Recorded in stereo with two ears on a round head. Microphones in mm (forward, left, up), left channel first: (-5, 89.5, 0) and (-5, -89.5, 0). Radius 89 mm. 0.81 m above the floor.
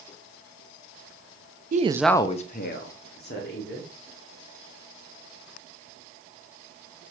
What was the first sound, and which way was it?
A woman speaking, 45° right (ahead or behind).